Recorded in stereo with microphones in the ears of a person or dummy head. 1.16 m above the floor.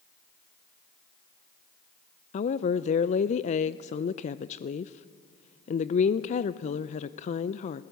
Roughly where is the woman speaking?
Left.